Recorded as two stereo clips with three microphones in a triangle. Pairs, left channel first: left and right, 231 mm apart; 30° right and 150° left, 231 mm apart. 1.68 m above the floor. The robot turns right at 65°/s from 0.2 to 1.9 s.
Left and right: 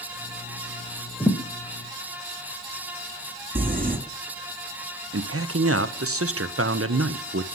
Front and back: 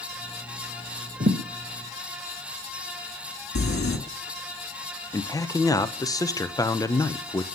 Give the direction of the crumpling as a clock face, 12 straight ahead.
1 o'clock.